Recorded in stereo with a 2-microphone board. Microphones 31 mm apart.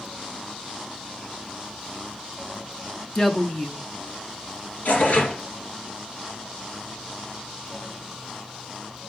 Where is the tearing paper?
60° left (ahead or behind), 2.5 m.